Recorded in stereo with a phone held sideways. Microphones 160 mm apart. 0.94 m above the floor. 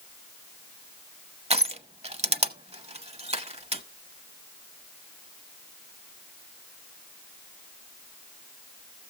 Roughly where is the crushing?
Right.